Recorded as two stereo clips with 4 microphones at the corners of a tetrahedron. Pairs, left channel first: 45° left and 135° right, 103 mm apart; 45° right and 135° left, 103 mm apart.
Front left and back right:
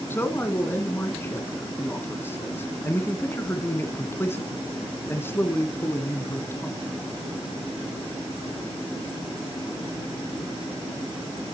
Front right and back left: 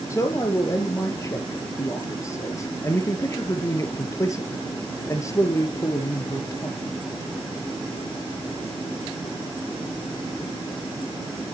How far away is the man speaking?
About 1.6 m.